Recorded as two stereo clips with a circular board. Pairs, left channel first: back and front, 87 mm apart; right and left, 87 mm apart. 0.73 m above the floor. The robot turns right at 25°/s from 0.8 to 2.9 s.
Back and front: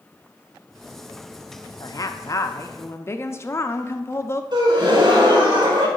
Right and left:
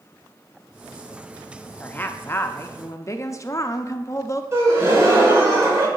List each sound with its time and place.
1.8 s a woman speaking: 160° right, 0.6 m; by 4.4 s 130° right, 0.6 m
4.5 s a gasp: 30° left, 1.6 m